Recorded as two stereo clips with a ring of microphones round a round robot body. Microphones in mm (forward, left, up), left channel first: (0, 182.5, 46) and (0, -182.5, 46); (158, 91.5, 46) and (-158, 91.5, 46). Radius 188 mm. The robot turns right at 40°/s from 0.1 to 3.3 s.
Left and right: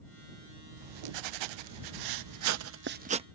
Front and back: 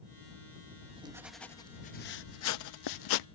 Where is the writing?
115° right; by 3.2 s 15° right.